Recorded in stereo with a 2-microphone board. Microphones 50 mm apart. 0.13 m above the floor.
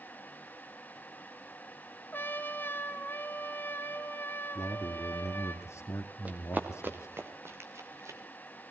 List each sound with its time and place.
2.1 s a trumpet: 40° left (ahead or behind), 1.5 m
4.5 s a man speaking: 60° left (ahead or behind), 2.5 m
6.2 s running footsteps: 30° right (ahead or behind), 3 m; by 8.2 s 65° right (ahead or behind), 3 m